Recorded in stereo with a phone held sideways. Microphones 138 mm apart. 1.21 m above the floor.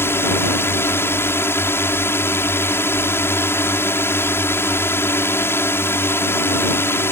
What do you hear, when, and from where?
0.0 s a drone: 15° left (ahead or behind)